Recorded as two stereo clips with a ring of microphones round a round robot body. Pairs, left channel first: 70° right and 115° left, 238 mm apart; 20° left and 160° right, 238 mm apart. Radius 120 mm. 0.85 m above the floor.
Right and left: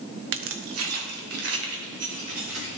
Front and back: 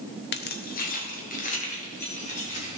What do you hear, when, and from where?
0.3 s keys jangling: 70° left, 0.8 m; by 2.8 s 85° left, 4 m